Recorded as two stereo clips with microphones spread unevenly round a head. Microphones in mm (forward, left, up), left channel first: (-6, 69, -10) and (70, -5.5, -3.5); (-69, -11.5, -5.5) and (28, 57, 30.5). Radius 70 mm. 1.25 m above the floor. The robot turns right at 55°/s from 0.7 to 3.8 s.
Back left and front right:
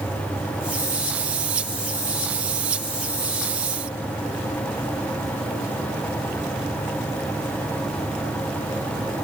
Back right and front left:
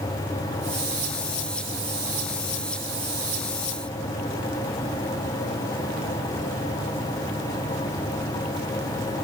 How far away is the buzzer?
No buzzer in this recording.